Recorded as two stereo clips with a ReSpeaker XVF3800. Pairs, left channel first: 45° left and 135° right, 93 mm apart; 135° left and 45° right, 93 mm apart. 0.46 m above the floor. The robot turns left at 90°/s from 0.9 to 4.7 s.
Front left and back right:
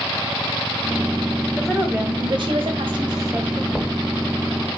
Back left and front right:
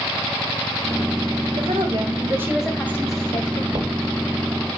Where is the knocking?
45° right, 1.7 m; by 4.0 s 65° right, 1.7 m.